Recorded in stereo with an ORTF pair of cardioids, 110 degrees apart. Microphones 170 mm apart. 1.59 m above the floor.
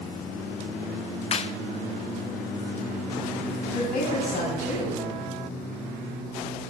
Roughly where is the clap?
Ahead left.